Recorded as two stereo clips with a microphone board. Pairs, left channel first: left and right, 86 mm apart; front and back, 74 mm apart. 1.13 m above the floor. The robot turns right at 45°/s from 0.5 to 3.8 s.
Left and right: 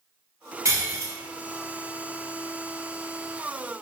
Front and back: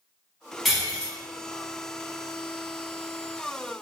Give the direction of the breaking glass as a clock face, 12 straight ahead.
3 o'clock.